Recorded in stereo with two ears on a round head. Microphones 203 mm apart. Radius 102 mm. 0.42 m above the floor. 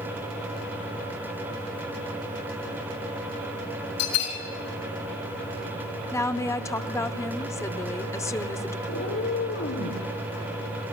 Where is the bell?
80° left, 4.5 m.